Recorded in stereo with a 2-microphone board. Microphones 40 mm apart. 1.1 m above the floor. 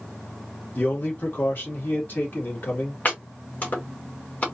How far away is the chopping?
About 1.9 m.